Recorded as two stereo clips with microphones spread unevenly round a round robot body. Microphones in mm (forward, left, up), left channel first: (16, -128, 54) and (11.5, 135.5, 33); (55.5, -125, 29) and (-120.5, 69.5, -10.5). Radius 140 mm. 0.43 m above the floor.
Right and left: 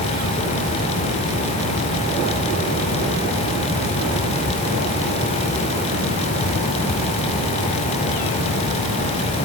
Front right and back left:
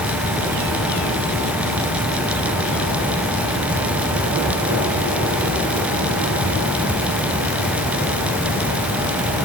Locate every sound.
Only background noise.